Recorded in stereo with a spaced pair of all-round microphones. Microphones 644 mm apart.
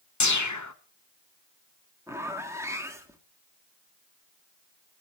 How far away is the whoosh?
About 0.9 m.